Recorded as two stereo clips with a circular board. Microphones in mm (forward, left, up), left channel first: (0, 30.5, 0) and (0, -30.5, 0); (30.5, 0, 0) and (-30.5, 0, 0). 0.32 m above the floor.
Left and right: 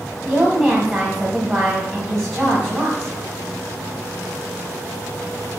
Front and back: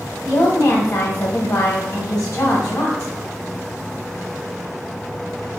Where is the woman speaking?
45° right, 1.4 m.